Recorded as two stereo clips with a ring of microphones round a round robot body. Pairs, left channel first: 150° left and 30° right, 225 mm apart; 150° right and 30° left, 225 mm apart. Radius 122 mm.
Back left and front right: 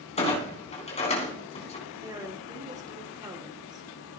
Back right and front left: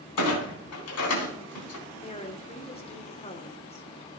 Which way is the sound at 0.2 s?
150° right.